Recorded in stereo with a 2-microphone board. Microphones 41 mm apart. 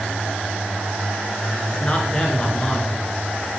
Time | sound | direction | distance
1.7 | a man speaking | 20° left (ahead or behind) | 2 m